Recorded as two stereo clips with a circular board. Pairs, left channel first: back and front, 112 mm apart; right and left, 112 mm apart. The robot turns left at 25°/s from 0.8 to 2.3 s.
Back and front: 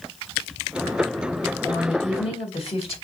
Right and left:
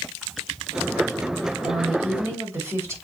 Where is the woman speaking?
170° left, 2.5 m; by 3.0 s 155° left, 2.5 m.